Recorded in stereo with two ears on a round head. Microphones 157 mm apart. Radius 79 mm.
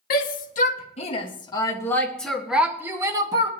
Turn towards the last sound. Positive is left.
turn(degrees=-25)  # may be behind; listen again after turning